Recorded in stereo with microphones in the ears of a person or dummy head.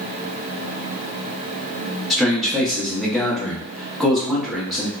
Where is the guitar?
I don't hear a guitar.